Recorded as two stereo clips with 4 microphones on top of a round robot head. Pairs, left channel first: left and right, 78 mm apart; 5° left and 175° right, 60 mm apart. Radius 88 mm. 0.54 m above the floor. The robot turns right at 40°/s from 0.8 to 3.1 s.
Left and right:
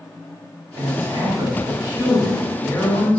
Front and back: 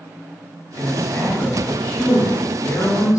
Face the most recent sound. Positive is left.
turn(degrees=25)